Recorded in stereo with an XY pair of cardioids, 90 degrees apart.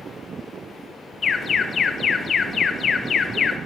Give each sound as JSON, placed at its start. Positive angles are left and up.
{"t": 1.2, "sound": "an alarm", "azimuth_deg": 50, "distance_m": 1.0}